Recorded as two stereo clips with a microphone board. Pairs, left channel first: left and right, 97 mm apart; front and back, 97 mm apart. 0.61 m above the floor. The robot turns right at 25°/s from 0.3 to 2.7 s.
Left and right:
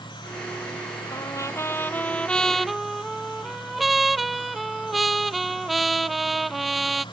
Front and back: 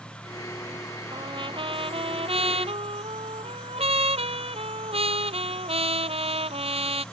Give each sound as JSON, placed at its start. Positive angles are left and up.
{"t": 1.1, "sound": "a trumpet", "azimuth_deg": 140}